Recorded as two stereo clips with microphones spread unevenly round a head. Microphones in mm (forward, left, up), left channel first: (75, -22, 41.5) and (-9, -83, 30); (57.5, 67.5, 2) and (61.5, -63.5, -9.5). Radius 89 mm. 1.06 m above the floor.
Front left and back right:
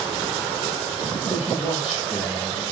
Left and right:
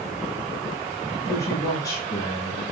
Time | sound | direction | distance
1.2 | a man speaking | 130° left | 6.5 m